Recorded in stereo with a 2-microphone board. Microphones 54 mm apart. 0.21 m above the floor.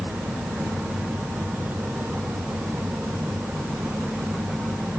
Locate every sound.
Only background noise.